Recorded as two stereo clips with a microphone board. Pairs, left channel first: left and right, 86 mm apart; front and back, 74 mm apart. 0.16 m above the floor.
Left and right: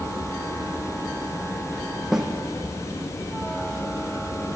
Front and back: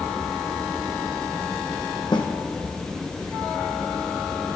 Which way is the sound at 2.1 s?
5° right.